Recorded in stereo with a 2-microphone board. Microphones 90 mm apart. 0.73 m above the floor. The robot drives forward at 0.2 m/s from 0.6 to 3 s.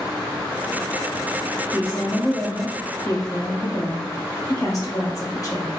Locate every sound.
1.7 s a woman speaking: 40° left (ahead or behind), 1.1 m